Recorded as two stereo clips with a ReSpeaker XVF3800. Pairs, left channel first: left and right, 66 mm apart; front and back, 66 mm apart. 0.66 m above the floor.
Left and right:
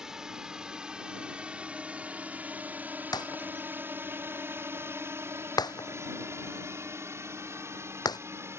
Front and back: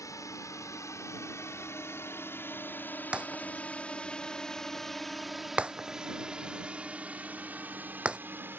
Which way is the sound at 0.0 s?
10° right.